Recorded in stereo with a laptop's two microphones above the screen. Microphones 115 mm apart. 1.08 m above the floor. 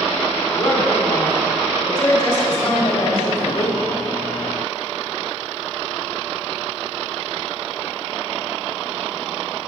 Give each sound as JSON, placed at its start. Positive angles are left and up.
{"t": 0.5, "sound": "a woman speaking", "side_deg": 40, "distance_m": 2.0}